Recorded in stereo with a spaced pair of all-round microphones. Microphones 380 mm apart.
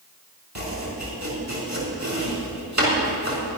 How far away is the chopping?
About 4.5 m.